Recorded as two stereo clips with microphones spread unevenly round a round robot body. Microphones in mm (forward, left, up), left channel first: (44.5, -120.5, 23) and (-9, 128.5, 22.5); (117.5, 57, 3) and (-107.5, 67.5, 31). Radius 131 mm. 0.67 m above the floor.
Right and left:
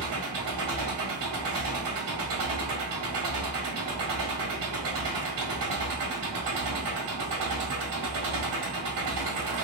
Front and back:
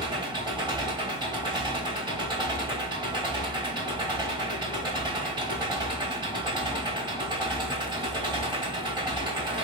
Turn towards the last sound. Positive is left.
turn(degrees=105)